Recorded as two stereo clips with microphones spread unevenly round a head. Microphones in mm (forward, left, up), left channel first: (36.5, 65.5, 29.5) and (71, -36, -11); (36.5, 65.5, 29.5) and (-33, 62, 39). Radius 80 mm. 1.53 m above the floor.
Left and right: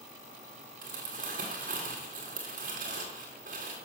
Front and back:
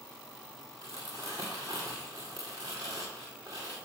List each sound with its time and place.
0.8 s crumpling: 110° right, 1.7 m